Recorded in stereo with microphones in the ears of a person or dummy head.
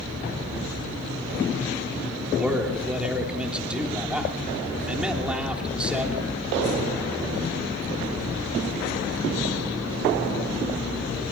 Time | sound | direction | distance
2.4 | a man speaking | 5° right (ahead or behind) | 3 m